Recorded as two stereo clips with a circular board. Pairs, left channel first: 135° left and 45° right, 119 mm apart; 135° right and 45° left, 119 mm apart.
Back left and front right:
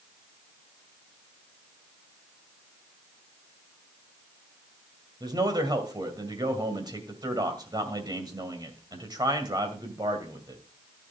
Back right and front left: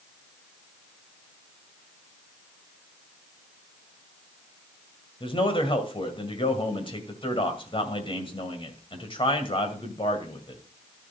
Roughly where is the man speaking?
Right.